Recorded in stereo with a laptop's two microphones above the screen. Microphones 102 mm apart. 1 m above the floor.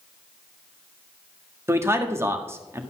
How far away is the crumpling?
No crumpling in this recording.